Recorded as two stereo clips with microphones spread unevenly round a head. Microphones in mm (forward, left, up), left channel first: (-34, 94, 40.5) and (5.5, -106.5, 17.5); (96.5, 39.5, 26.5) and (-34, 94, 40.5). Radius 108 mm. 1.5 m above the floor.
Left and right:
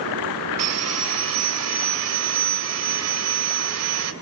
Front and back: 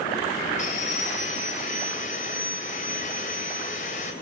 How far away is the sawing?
About 2.5 m.